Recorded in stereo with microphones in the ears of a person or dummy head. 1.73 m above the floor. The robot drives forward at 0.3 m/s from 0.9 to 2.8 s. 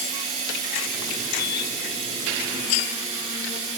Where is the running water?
35° right (ahead or behind), 2.5 m; by 3.8 s 30° right (ahead or behind), 3 m.